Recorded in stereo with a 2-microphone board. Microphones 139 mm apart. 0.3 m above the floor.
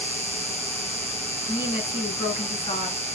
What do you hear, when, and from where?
0.0 s an insect: 50° right (ahead or behind), 1.0 m
1.5 s a woman speaking: 45° left (ahead or behind), 4 m